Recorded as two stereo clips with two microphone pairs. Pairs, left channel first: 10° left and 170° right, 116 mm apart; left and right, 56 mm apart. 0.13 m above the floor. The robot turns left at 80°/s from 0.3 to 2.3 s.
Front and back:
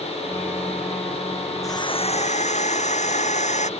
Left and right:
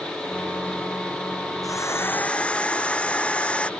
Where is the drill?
75° left; by 3.7 s 20° left.